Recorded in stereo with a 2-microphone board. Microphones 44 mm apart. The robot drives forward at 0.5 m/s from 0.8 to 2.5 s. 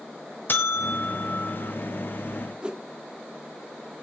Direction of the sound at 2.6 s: 20° right (ahead or behind).